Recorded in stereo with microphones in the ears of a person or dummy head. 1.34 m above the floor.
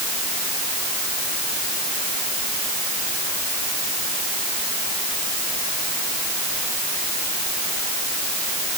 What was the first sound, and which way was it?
Only background noise.